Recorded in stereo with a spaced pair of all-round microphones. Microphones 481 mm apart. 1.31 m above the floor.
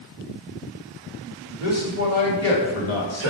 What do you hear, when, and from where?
1.6 s a man speaking: 30° left (ahead or behind), 2 m